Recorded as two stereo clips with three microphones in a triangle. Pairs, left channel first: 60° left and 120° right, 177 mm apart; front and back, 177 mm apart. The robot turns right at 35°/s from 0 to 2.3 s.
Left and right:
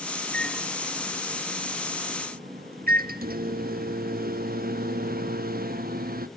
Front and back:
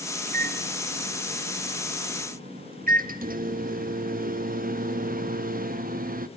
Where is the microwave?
140° left, 0.8 m; by 6.3 s 150° right, 0.8 m.